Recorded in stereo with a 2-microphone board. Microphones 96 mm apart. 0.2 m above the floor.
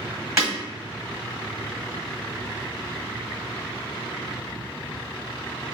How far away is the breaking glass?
About 1.8 m.